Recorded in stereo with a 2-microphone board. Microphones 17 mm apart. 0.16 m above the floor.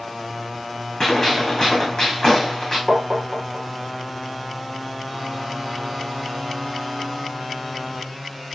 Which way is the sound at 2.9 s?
60° right (ahead or behind).